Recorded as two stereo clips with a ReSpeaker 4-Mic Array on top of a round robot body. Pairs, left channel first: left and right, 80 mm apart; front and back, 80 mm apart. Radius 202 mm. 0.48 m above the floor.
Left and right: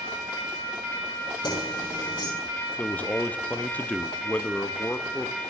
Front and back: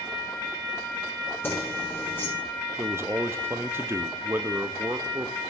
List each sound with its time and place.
1.4 s keys jangling: 60° left, 6 m
2.8 s a man speaking: 145° left, 0.9 m